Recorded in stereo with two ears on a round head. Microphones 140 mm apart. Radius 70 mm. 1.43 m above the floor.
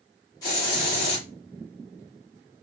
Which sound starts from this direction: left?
A hiss, at 0.4 s.